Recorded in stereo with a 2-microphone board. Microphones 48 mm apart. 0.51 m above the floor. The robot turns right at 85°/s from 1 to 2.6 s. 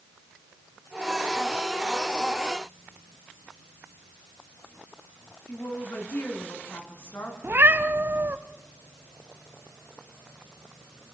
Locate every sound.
5.5 s a woman speaking: 60° left (ahead or behind), 5 m
7.4 s a cat meowing: 50° right (ahead or behind), 1.0 m